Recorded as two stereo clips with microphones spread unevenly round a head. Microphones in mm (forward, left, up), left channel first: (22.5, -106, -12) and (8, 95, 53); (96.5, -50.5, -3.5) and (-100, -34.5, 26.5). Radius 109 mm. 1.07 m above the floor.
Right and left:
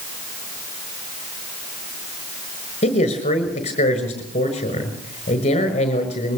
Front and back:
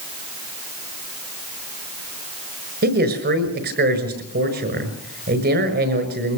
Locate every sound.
2.8 s a man speaking: 145° right, 6 m